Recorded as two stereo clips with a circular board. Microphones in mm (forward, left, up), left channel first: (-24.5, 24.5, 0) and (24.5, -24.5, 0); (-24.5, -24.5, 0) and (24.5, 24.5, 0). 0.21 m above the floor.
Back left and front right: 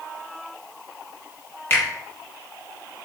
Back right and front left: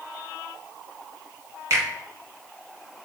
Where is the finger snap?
85° left, 1.6 m.